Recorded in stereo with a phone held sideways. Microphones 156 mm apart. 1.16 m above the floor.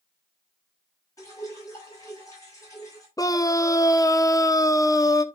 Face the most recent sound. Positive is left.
turn(degrees=20)  # may be behind; listen again after turning